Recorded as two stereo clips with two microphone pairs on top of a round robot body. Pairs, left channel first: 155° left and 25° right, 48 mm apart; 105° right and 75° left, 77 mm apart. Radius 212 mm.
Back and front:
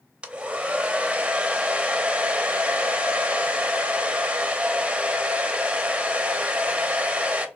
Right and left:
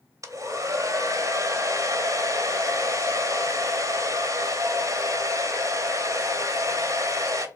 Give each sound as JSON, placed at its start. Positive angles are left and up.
{"t": 0.2, "sound": "a hair dryer", "azimuth_deg": 40, "distance_m": 0.8}